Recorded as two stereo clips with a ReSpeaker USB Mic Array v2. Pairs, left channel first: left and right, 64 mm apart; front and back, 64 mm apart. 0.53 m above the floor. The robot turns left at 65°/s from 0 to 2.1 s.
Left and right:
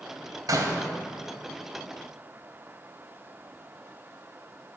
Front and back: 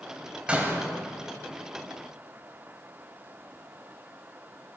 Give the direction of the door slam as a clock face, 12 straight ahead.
4 o'clock.